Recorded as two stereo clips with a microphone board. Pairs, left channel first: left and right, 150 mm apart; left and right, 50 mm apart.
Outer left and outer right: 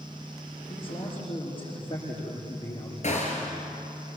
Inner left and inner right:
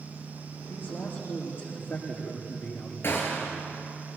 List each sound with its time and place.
0.7 s a man speaking: 35° left (ahead or behind), 8.5 m
3.0 s a gunshot: 50° left (ahead or behind), 4 m